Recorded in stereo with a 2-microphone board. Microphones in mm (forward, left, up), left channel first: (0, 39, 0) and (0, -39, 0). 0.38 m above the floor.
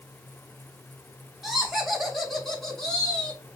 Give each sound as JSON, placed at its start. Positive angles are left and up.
{"t": 1.4, "sound": "laughter", "side_deg": -5, "distance_m": 2.0}